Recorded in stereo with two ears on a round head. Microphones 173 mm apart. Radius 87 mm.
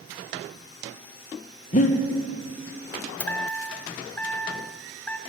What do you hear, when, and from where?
1.7 s breathing: 40° left (ahead or behind), 1.0 m
3.2 s a chime: 10° left (ahead or behind), 0.6 m